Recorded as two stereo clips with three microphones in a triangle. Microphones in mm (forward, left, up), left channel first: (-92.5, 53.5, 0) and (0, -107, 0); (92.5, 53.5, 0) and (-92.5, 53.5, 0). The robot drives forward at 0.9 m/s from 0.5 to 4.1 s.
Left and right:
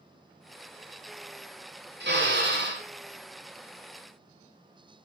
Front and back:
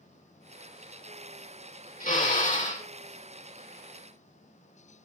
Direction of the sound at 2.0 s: 45° right.